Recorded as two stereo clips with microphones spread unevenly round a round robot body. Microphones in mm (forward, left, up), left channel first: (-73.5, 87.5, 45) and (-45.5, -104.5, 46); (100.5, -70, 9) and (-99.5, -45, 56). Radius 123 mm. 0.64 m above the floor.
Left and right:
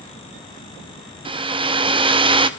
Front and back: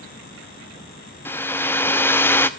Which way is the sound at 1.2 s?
50° right.